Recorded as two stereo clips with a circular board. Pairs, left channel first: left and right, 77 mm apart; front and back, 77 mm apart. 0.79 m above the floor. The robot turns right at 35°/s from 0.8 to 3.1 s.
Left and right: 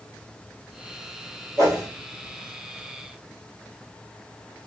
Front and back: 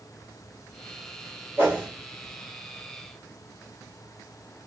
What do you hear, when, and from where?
1.6 s a whoosh: 130° right, 1.2 m; by 1.9 s 120° right, 1.2 m